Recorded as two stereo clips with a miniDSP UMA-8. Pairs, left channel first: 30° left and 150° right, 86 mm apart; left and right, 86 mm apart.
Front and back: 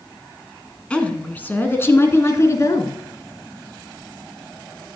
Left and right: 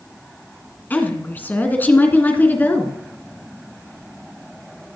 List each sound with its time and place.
0.9 s a woman speaking: 85° left, 1.7 m; by 2.9 s 35° left, 2 m